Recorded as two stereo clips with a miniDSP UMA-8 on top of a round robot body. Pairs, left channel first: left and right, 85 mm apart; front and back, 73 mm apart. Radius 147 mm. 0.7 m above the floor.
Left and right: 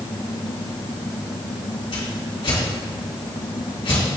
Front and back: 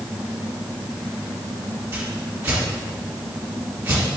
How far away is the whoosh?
About 2.5 m.